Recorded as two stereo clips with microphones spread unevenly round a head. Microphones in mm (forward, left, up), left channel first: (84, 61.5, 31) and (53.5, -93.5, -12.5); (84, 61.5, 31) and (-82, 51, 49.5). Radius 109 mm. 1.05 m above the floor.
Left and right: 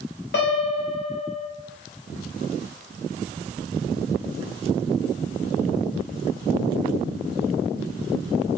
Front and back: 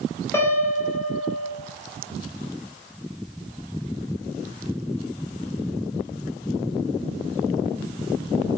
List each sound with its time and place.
0.3 s a piano: 75° left, 1.2 m